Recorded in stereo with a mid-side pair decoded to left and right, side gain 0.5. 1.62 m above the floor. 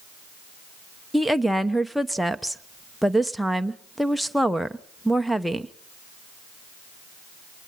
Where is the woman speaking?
Straight ahead, 0.9 m.